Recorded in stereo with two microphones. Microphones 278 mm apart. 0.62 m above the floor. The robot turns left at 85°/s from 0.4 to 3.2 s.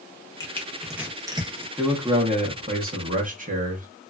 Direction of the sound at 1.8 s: 5° left.